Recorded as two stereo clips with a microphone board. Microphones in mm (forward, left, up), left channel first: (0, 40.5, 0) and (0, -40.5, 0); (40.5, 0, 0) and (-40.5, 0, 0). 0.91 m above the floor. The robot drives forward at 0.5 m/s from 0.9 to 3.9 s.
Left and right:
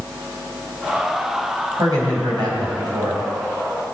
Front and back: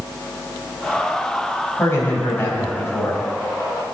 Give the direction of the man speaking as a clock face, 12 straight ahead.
2 o'clock.